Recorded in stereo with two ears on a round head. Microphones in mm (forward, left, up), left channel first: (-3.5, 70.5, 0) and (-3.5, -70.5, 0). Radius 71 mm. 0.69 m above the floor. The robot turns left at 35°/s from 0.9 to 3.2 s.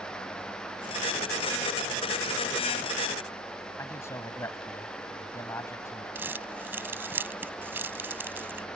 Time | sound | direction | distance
3.8 | a man speaking | 15° left (ahead or behind) | ?
6.2 | crumpling | 15° right (ahead or behind) | ?